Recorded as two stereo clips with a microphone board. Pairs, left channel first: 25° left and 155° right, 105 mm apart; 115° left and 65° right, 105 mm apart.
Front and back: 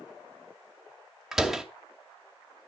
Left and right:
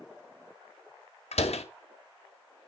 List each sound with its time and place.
1.3 s a door slam: 115° left, 2 m